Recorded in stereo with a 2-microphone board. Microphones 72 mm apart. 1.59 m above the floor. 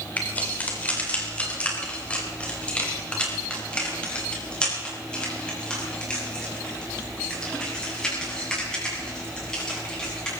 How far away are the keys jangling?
About 3.5 m.